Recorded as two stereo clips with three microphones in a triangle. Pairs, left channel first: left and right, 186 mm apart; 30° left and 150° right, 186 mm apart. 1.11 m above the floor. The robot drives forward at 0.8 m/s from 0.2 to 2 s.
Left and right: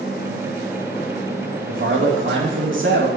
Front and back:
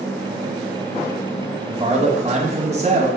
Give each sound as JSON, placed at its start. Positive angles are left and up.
{"t": 1.7, "sound": "a man speaking", "azimuth_deg": -85, "distance_m": 2.5}